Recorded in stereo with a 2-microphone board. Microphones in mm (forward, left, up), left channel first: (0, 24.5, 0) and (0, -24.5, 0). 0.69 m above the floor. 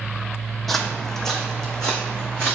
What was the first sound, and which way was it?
Footsteps, centre (ahead or behind).